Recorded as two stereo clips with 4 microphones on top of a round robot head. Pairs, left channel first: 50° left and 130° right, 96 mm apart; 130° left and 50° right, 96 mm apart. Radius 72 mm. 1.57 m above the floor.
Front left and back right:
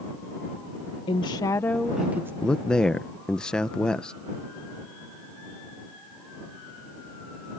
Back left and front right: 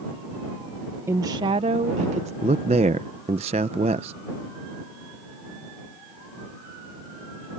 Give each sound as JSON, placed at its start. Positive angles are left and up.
{"t": 1.1, "sound": "a woman speaking", "azimuth_deg": 15}
{"t": 2.4, "sound": "a man speaking", "azimuth_deg": -35}